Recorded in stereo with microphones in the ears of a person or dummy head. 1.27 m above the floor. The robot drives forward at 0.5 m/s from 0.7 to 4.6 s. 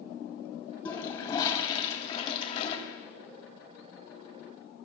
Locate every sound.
0.8 s a toilet flushing: 30° left (ahead or behind), 2 m; by 2.8 s 45° left (ahead or behind), 1.6 m